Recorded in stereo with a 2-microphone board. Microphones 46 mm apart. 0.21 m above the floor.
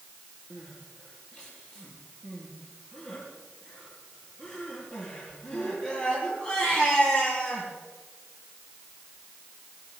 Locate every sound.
0.5 s crying: 20° left (ahead or behind), 7 m